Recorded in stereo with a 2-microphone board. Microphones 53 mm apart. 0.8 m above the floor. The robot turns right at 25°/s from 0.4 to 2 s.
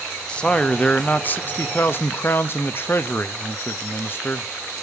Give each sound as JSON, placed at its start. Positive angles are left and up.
{"t": 0.3, "sound": "a man speaking", "azimuth_deg": 25, "distance_m": 0.6}